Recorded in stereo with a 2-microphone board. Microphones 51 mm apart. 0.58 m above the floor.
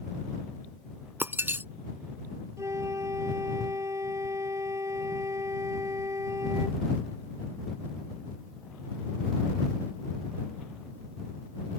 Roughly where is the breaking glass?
Right.